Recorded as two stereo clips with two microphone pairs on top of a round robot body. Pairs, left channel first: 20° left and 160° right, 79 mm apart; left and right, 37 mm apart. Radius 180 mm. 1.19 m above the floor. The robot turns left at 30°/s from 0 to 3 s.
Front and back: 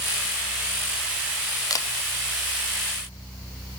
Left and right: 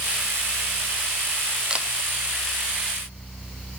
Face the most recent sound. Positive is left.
turn(degrees=-65)